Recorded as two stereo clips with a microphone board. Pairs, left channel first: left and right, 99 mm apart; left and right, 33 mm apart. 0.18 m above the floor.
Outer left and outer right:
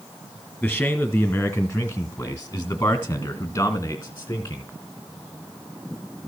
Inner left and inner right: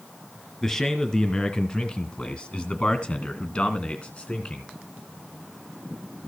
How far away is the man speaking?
About 1.9 m.